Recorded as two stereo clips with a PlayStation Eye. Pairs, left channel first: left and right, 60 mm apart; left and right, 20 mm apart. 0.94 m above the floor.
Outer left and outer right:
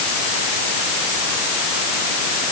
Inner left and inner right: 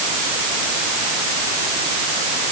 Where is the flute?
I don't hear a flute.